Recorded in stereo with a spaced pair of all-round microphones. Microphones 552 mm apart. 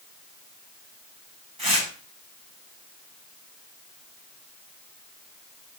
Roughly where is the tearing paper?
Right.